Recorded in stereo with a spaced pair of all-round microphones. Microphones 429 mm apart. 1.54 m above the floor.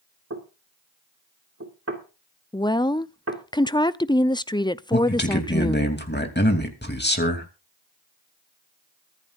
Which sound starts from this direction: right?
Knocking, at 0.3 s.